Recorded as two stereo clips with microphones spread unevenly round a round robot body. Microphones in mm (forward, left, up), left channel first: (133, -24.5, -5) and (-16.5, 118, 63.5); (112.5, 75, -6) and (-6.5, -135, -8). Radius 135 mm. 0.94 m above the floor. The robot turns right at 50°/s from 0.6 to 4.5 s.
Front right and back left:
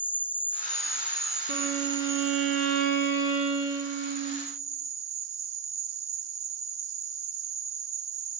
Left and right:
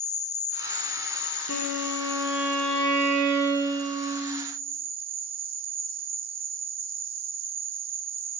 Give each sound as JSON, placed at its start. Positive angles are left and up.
{"t": 0.0, "sound": "an insect", "azimuth_deg": 10, "distance_m": 0.8}
{"t": 1.5, "sound": "a violin", "azimuth_deg": 110, "distance_m": 4.5}